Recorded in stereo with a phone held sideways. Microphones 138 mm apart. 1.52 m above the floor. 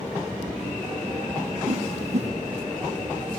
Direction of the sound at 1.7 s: 55° right (ahead or behind).